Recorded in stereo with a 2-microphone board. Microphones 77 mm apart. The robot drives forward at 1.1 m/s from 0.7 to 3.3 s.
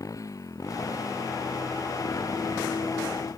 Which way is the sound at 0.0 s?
45° left (ahead or behind).